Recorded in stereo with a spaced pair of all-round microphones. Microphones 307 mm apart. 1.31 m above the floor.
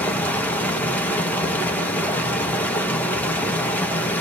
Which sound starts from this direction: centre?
Running water, at 0.0 s.